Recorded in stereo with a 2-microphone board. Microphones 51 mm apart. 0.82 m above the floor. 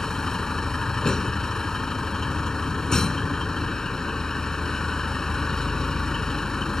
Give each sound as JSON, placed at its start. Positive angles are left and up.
{"t": 0.0, "sound": "a vehicle", "side_deg": 10}